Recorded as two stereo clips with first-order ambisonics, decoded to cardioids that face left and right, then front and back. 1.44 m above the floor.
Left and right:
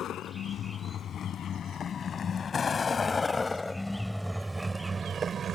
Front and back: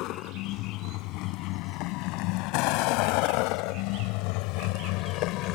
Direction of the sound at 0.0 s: 35° left.